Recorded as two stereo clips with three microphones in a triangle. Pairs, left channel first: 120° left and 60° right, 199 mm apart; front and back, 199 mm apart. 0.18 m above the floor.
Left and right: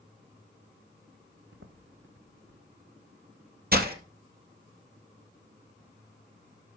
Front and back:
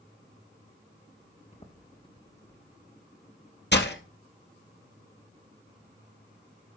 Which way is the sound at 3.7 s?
25° right.